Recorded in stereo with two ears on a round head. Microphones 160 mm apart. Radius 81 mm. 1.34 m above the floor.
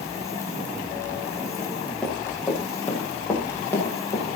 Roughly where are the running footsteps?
Centre.